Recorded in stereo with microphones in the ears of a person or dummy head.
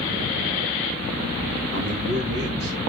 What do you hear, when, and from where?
1.7 s a man speaking: 70° right (ahead or behind), 3.5 m; by 2.9 s 50° right (ahead or behind), 3.5 m